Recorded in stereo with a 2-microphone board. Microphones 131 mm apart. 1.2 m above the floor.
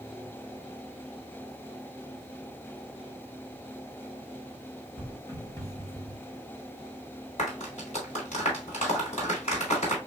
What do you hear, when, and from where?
5.0 s footsteps: 25° left (ahead or behind), 2 m; by 6.2 s 10° left (ahead or behind), 1.2 m
7.4 s a clap: 60° left (ahead or behind), 3 m